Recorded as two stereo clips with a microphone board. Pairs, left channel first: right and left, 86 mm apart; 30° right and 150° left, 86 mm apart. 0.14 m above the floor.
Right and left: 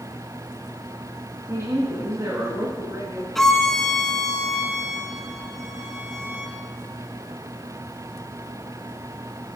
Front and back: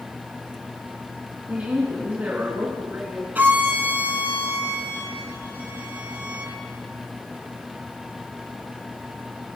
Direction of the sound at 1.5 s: 90° left.